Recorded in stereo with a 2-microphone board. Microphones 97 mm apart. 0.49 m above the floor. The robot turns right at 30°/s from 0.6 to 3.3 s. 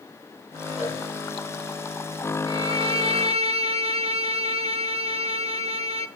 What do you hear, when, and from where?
0.8 s a cowbell: 85° left, 6 m
2.5 s a violin: 55° right (ahead or behind), 0.7 m; by 6.1 s 75° right (ahead or behind), 0.7 m